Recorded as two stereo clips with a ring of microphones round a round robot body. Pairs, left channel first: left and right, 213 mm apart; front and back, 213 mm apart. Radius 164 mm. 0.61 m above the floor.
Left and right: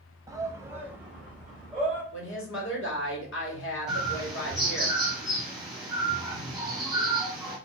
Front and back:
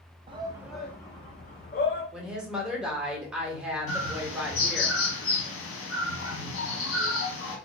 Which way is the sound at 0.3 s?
150° right.